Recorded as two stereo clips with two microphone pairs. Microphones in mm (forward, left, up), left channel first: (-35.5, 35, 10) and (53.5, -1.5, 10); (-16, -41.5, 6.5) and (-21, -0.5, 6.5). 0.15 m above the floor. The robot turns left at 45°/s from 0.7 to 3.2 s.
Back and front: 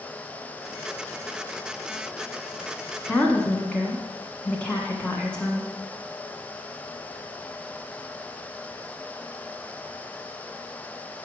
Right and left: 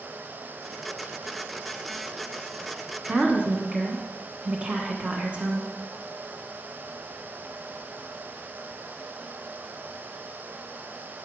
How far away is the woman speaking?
About 1.2 m.